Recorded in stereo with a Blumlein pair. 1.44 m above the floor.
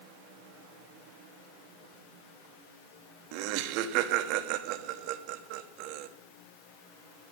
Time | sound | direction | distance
3.3 | laughter | 45° right | 1.2 m